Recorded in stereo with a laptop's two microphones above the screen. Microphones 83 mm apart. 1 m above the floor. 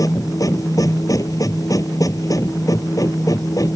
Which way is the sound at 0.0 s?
45° left (ahead or behind).